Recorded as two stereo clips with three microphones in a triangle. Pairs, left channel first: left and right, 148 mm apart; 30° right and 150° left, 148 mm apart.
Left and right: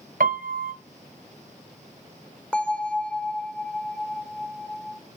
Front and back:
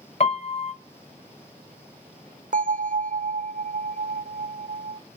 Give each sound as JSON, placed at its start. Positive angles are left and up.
{"t": 0.2, "sound": "a piano", "azimuth_deg": -75, "distance_m": 1.0}
{"t": 2.5, "sound": "a bell", "azimuth_deg": 175, "distance_m": 0.6}